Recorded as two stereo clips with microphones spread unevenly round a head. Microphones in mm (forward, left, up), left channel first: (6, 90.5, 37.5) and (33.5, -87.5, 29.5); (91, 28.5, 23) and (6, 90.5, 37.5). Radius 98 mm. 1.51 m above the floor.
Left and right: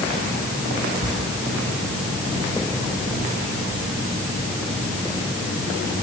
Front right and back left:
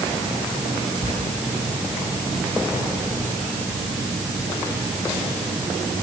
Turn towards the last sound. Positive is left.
turn(degrees=175)